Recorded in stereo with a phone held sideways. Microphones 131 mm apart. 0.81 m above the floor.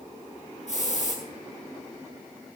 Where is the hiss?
65° left (ahead or behind), 9.5 m.